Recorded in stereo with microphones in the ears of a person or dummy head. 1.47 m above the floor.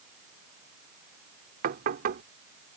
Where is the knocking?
55° right (ahead or behind).